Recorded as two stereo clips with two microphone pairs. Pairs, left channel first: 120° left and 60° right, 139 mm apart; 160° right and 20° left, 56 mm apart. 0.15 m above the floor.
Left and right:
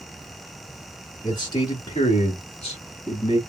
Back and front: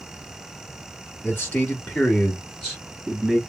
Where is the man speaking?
170° left, 1.9 m; by 3.4 s 115° left, 1.8 m.